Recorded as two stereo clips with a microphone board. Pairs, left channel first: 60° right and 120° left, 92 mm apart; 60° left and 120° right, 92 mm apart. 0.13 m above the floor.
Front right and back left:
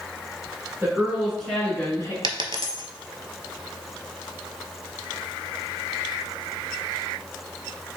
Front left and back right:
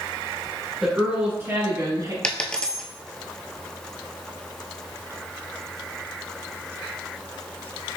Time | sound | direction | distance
0.8 | a woman speaking | 160° left | 1.6 m
2.2 | a dropped coin | 140° left | 0.5 m